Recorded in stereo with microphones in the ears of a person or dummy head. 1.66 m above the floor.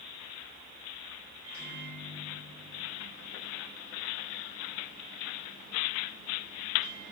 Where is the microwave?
15° right (ahead or behind), 2.5 m.